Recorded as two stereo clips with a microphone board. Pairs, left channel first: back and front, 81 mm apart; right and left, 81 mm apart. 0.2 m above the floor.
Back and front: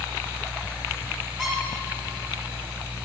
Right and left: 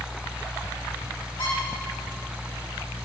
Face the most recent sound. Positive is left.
turn(degrees=-95)